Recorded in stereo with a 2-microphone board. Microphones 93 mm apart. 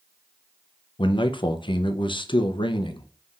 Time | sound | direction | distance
1.0 | a man speaking | 60° left (ahead or behind) | 0.6 m